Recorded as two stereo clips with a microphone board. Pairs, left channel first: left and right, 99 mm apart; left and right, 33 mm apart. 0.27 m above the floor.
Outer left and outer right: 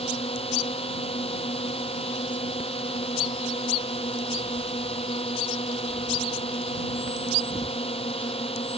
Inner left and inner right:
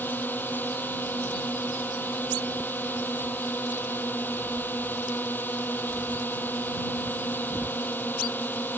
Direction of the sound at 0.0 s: 80° left.